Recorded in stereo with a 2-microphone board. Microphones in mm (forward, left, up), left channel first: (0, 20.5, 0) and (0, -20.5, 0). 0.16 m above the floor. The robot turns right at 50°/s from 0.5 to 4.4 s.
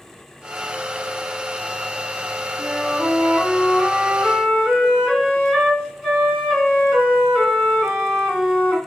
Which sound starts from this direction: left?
A flute, at 2.6 s.